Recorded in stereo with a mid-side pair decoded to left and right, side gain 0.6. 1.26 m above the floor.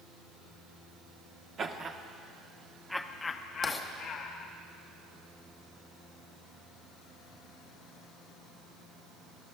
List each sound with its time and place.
1.6 s laughter: 40° right, 1.3 m; by 4.5 s 70° left, 1.3 m
3.6 s writing: 15° left, 1.5 m